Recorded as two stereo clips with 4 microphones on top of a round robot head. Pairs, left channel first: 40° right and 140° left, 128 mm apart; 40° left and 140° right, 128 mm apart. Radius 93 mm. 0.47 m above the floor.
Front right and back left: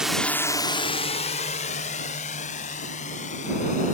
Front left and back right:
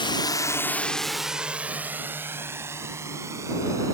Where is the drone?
55° left; by 3.9 s 70° right.